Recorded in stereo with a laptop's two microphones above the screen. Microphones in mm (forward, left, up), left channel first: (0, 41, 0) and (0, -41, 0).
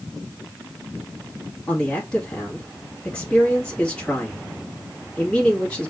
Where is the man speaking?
15° left (ahead or behind), 1.7 m.